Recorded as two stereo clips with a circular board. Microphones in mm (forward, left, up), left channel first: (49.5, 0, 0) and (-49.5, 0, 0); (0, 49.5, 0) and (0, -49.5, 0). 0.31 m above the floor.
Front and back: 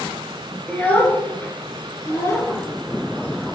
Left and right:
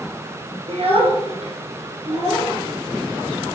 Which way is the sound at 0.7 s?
75° right.